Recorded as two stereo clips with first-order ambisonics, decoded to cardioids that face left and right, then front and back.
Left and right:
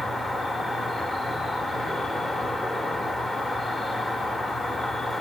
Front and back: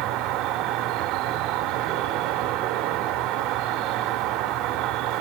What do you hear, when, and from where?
0.0 s an insect: 170° left, 0.7 m